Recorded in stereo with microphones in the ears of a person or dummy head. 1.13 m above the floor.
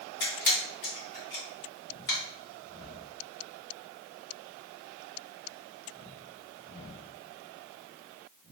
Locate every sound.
0.2 s a camera shutter: 55° left (ahead or behind), 1.5 m